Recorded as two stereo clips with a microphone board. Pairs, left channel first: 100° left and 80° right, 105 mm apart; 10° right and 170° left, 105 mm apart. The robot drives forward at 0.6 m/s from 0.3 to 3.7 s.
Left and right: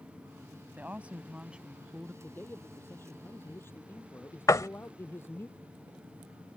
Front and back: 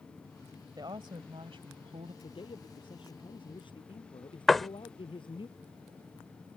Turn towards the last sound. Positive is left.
turn(degrees=75)